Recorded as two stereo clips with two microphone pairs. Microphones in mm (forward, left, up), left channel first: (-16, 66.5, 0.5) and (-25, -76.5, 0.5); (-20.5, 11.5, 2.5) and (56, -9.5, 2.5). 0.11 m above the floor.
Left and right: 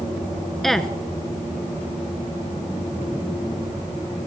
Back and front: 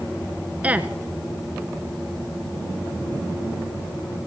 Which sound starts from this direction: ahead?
A woman speaking, at 0.6 s.